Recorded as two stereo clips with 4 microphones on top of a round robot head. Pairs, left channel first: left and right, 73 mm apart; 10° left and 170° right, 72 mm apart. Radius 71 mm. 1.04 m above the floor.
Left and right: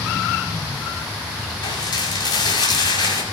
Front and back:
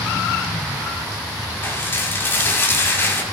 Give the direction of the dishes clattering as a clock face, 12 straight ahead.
10 o'clock.